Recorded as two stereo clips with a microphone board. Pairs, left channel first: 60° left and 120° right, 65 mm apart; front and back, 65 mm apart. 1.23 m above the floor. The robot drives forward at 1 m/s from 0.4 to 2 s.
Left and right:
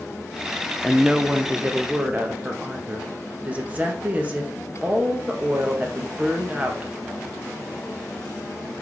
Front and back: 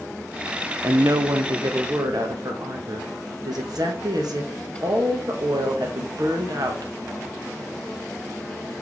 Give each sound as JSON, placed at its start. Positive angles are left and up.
{"t": 0.8, "sound": "a woman speaking", "azimuth_deg": 145, "distance_m": 0.5}